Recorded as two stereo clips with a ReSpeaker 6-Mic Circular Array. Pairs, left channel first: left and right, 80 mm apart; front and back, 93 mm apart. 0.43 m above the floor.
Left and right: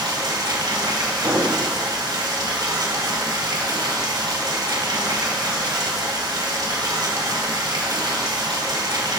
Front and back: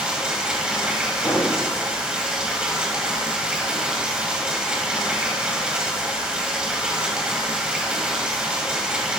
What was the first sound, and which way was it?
Running water, 100° right.